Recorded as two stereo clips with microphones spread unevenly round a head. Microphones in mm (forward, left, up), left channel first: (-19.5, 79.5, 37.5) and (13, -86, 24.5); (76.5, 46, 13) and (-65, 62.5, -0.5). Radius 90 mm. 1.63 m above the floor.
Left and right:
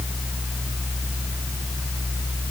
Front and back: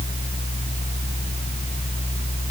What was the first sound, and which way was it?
Only background noise.